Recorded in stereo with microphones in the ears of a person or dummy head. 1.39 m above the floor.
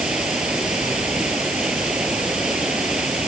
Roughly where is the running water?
Centre.